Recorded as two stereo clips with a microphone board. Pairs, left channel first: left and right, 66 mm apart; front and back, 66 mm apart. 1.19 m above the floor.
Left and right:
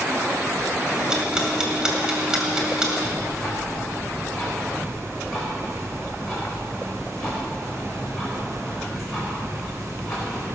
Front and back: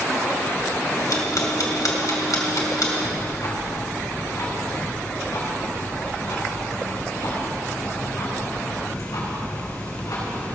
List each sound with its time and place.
0.9 s ticking: 15° right, 2.5 m
3.0 s ticking: straight ahead, 5 m